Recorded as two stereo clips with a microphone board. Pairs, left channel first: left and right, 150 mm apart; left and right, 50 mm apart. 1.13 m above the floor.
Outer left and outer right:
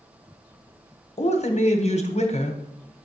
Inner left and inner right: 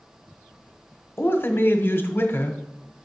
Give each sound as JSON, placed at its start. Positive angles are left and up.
{"t": 1.2, "sound": "a man speaking", "side_deg": 50, "distance_m": 0.9}